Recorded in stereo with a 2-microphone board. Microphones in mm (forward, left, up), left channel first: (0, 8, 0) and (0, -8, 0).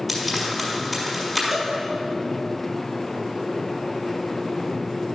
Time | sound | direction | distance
0.1 | frying | 10° right (ahead or behind) | 5 m
1.5 | a cowbell | 20° right (ahead or behind) | 3.5 m